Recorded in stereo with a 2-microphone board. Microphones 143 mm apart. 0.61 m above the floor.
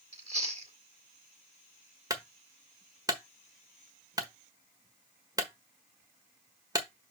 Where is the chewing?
45° right (ahead or behind), 1.8 m.